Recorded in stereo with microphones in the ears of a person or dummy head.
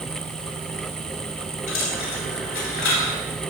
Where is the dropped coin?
70° left (ahead or behind), 3 m.